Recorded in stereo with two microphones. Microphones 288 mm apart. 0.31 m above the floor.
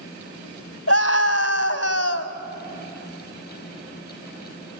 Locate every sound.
0.9 s a scream: 50° left (ahead or behind), 1.7 m